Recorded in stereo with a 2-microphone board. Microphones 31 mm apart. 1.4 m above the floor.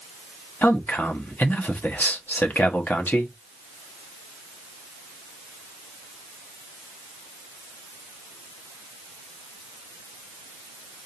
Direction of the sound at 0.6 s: 70° left (ahead or behind).